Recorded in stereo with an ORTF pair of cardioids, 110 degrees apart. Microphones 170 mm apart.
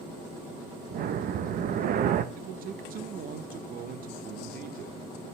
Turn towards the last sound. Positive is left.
turn(degrees=-55)